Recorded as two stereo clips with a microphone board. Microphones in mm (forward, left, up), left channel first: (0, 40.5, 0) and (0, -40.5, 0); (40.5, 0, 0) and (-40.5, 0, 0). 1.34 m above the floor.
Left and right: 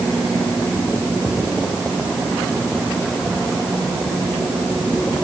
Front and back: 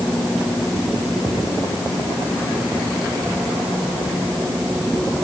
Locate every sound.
Only background noise.